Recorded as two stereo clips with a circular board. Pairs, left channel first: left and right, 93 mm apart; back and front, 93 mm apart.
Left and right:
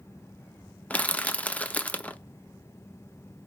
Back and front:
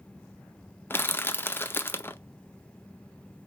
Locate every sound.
0.9 s crushing: 145° left, 0.5 m